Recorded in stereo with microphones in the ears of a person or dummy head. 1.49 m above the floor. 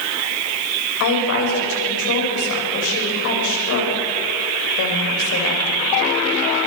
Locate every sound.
1.0 s a woman speaking: 70° left (ahead or behind), 8.5 m